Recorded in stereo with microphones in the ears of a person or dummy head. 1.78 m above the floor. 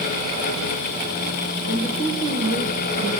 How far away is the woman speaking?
About 1.9 m.